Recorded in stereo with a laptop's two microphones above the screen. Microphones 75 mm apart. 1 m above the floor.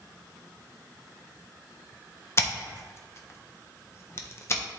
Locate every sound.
2.4 s scissors: 35° left (ahead or behind), 0.6 m